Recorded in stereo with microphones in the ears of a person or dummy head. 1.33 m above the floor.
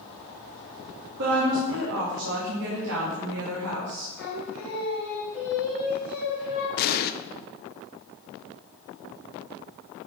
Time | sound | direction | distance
1.2 | a woman speaking | 60° right (ahead or behind) | 2.5 m
4.2 | singing | 10° right (ahead or behind) | 4 m
6.8 | an explosion | 50° left (ahead or behind) | 0.7 m